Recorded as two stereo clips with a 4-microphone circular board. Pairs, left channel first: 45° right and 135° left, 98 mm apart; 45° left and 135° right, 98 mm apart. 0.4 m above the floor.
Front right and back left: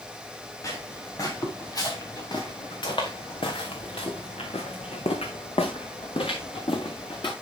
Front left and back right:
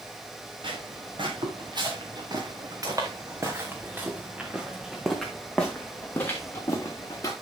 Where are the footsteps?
105° right, 3 m; by 7.3 s 10° right, 2.5 m.